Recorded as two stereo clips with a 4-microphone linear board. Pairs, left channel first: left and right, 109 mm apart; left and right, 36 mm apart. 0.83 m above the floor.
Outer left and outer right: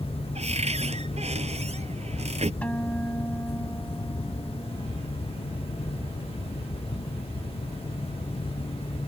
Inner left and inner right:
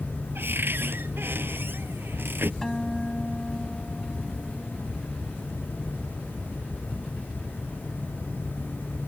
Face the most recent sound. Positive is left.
turn(degrees=10)  # may be behind; listen again after turning